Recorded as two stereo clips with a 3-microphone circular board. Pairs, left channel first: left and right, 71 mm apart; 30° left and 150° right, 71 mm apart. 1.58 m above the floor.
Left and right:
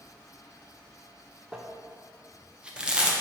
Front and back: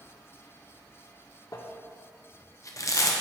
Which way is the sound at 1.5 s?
15° right.